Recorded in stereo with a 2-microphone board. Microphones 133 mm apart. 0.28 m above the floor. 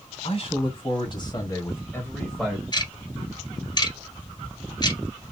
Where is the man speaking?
50° left (ahead or behind), 2.5 m; by 2.6 s 5° right (ahead or behind), 1.7 m.